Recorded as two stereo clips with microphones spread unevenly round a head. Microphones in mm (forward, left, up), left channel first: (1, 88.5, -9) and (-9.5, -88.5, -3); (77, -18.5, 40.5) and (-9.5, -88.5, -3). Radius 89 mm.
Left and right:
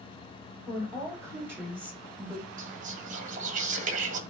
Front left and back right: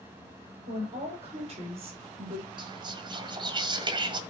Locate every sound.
0.7 s a woman speaking: 165° right, 5 m; by 2.5 s straight behind, 3.5 m
2.6 s whispering: 135° right, 1.6 m